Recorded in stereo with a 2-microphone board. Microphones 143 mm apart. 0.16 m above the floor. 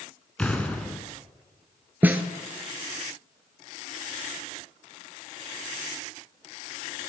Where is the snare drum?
15° right (ahead or behind), 0.5 m.